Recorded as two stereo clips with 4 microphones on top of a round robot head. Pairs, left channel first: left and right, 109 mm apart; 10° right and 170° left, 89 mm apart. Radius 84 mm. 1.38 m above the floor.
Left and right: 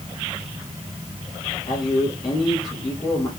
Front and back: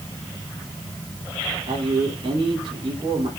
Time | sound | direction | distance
1.7 | a man speaking | 140° left | 4.5 m